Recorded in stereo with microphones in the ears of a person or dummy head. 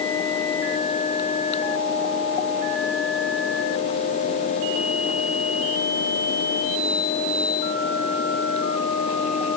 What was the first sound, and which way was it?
Only background noise.